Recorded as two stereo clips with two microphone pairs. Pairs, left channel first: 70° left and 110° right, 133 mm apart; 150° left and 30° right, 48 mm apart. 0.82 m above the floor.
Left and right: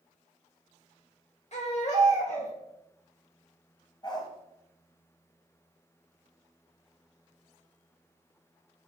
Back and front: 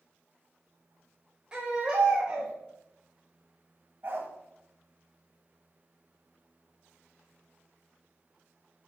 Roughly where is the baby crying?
Ahead left.